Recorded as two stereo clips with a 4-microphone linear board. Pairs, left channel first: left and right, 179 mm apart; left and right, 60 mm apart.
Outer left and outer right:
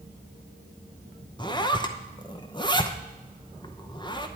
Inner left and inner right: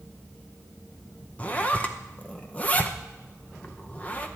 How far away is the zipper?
About 0.7 m.